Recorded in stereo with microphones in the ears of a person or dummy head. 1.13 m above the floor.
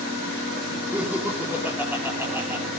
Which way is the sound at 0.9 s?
5° right (ahead or behind).